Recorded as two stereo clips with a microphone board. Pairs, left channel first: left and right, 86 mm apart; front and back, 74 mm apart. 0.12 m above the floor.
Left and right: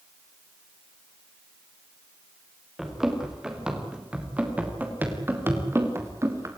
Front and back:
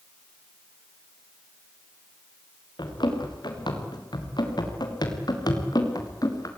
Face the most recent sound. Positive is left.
turn(degrees=-35)